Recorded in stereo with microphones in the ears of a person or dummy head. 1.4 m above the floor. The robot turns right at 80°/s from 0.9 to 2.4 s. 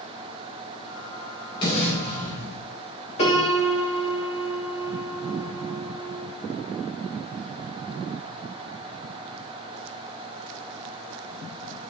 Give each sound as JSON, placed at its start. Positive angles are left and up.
{"t": 1.6, "sound": "an explosion", "azimuth_deg": 25, "distance_m": 5.5}
{"t": 3.2, "sound": "a piano", "side_deg": 35, "distance_m": 2.5}